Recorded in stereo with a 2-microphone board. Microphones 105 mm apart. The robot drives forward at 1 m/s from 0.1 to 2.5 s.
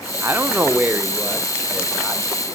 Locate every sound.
0.2 s a man speaking: 20° right (ahead or behind), 0.7 m; by 2.5 s 5° right (ahead or behind), 2.5 m